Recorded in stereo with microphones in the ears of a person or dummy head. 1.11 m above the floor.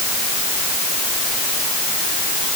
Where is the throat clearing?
No throat clearing in this recording.